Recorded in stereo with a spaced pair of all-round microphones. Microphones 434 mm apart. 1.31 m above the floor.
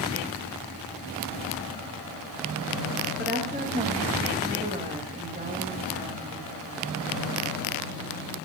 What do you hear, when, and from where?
3.2 s a woman speaking: 20° right (ahead or behind), 1.8 m